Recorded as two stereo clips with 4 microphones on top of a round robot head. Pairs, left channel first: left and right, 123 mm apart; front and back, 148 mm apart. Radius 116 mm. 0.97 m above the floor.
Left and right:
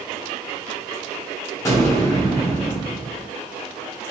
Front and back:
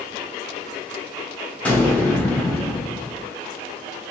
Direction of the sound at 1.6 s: 65° left.